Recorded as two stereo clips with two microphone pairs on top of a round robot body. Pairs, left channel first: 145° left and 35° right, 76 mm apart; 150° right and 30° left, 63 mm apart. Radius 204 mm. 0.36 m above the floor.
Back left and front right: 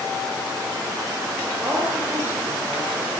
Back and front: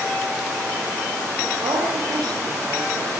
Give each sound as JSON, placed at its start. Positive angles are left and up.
{"t": 1.6, "sound": "a woman speaking", "azimuth_deg": 25, "distance_m": 8.0}